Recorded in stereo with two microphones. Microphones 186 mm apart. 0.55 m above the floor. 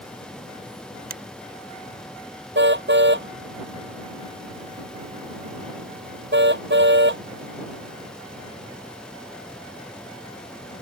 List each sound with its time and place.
1.1 s a finger snap: 50° right (ahead or behind)
2.5 s a car horn: 70° right (ahead or behind)